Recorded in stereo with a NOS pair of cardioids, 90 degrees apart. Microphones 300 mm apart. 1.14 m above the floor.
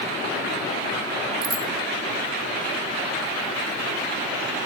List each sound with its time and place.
1.4 s a bicycle bell: 30° right, 4 m